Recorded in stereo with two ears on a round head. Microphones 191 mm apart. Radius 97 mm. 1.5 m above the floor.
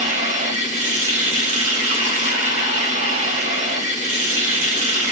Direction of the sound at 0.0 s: 35° right (ahead or behind).